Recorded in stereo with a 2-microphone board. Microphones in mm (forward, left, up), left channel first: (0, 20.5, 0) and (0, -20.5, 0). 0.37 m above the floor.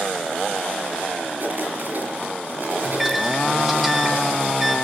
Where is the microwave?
5° right (ahead or behind), 0.9 m.